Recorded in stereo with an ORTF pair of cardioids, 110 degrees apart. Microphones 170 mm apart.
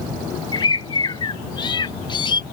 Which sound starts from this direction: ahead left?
A bird, at 0.5 s.